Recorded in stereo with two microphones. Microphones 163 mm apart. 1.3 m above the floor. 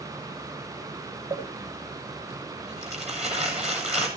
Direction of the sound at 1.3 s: 45° right (ahead or behind).